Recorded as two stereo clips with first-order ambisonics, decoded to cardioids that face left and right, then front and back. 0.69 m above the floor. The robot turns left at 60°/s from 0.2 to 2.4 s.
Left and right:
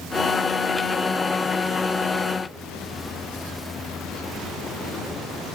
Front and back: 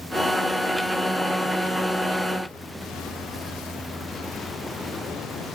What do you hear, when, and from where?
Only background noise.